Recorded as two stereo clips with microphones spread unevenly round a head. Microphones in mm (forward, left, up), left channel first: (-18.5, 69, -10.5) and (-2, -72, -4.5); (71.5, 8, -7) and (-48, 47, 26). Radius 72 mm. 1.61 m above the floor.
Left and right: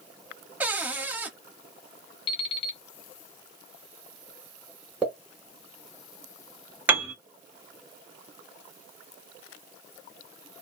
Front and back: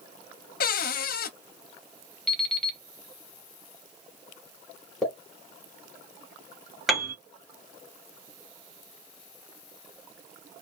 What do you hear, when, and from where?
0.6 s a cupboard door: 5° right, 0.5 m
2.3 s an alarm clock: 90° left, 0.8 m
5.0 s a pop: 140° right, 1.4 m
6.9 s a piano: 140° right, 1.1 m